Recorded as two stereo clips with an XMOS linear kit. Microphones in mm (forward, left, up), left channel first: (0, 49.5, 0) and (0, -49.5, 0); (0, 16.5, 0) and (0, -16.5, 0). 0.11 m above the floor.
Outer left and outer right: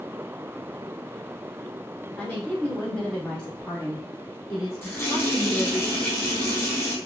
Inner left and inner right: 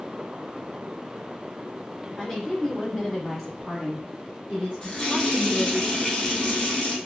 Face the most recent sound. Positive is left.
turn(degrees=25)  # may be behind; listen again after turning